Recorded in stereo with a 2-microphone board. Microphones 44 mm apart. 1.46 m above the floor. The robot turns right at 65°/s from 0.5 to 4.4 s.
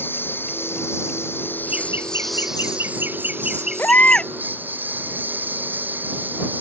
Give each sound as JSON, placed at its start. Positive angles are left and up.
{"t": 0.0, "sound": "a lawn mower", "azimuth_deg": 60}
{"t": 1.7, "sound": "laughter", "azimuth_deg": -150}
{"t": 3.8, "sound": "a baby crying", "azimuth_deg": 120}